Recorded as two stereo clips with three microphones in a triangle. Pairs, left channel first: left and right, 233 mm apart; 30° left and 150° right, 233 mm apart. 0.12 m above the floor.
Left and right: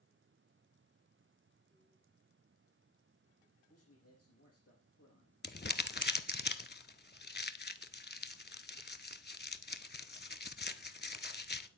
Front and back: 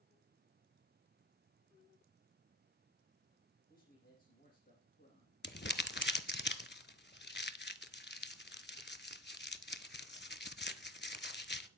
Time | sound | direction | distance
3.7 | a man speaking | 75° left | 4.5 m
5.4 | crumpling | 60° left | 0.5 m